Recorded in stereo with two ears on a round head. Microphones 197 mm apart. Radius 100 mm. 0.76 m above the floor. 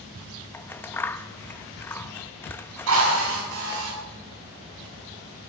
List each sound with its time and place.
0.5 s scissors: 10° left (ahead or behind), 0.7 m
2.9 s a drill: 75° right (ahead or behind), 7 m